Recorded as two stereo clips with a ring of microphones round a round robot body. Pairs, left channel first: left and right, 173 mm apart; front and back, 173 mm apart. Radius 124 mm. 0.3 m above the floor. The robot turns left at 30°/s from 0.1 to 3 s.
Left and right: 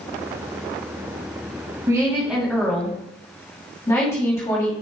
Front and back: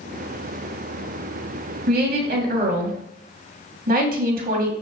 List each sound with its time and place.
1.9 s a woman speaking: 160° right, 2 m; by 4.7 s 165° left, 2 m